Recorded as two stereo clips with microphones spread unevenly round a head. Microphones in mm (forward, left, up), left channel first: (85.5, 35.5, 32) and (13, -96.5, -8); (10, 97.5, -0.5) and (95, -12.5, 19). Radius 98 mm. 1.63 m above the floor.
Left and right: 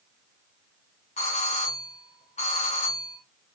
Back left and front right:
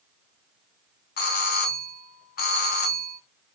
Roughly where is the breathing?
No breathing in this recording.